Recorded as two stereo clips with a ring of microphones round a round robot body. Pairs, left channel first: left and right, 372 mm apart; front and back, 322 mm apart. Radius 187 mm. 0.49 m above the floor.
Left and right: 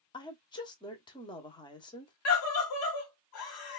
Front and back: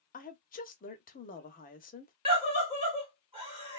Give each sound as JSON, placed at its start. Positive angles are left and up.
{"t": 0.1, "sound": "a woman speaking", "azimuth_deg": 25, "distance_m": 0.8}
{"t": 2.2, "sound": "a scream", "azimuth_deg": 115, "distance_m": 1.1}